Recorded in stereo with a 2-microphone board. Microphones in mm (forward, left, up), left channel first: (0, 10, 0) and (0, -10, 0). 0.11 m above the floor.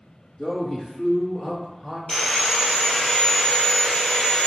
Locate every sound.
0.4 s a man speaking: 25° left (ahead or behind), 1.2 m; by 2.0 s 35° left (ahead or behind), 2.5 m
2.1 s sawing: 25° left (ahead or behind), 1.3 m